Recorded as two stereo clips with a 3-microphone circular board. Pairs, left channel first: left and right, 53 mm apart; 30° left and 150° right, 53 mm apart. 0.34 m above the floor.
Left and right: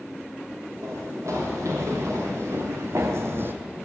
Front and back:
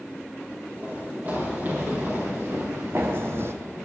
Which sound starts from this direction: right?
Running footsteps, at 0.8 s.